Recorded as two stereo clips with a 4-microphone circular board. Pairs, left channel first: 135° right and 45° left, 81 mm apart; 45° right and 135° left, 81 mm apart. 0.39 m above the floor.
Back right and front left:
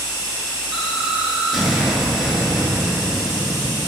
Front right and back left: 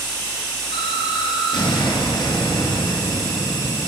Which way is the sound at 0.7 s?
40° right.